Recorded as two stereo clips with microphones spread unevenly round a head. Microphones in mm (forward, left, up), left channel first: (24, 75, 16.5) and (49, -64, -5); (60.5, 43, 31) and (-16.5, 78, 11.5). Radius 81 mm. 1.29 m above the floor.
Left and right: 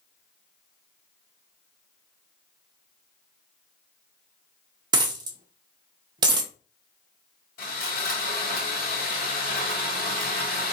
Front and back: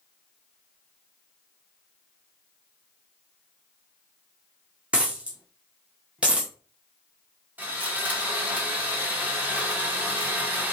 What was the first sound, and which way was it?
A dropped coin, 110° right.